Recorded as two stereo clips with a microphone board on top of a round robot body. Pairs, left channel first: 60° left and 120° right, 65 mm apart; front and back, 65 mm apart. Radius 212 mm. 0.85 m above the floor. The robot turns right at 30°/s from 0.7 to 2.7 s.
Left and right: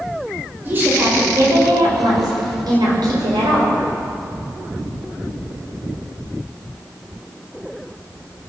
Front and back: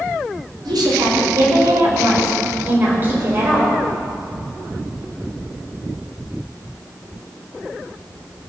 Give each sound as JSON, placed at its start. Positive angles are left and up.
{"t": 0.7, "sound": "a woman speaking", "azimuth_deg": 180, "distance_m": 5.5}